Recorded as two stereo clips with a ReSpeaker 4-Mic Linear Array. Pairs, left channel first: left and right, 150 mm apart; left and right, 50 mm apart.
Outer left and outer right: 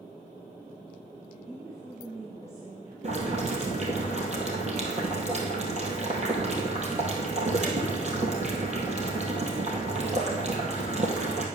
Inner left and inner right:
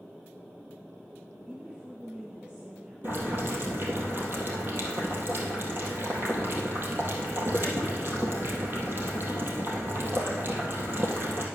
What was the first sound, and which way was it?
A woman speaking, 20° right (ahead or behind).